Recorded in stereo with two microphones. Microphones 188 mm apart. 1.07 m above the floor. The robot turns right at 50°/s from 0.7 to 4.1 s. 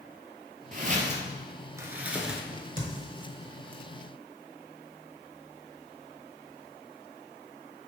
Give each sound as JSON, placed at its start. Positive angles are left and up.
{"t": 0.7, "sound": "footsteps", "side_deg": -45, "distance_m": 1.4}
{"t": 2.5, "sound": "a crack", "side_deg": -55, "distance_m": 1.2}